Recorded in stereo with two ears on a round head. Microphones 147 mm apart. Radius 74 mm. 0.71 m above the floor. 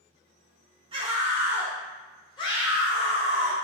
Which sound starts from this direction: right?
A scream, at 0.9 s.